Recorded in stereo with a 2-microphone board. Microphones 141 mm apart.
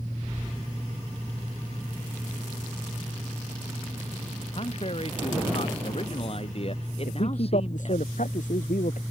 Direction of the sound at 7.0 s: 65° left (ahead or behind).